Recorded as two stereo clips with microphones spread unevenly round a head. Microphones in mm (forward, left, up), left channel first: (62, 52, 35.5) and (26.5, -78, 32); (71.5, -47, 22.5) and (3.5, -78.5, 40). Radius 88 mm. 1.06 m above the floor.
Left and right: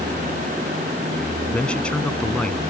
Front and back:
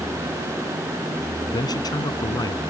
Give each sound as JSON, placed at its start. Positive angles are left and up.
{"t": 1.5, "sound": "a man speaking", "azimuth_deg": -5}